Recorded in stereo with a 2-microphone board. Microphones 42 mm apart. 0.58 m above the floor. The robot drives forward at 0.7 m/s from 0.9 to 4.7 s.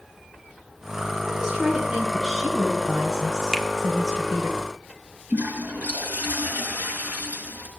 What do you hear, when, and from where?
1.2 s a woman speaking: 5° right (ahead or behind), 3.5 m
3.5 s a finger snap: 10° right (ahead or behind), 1.2 m
5.3 s a toilet flushing: 45° right (ahead or behind), 5 m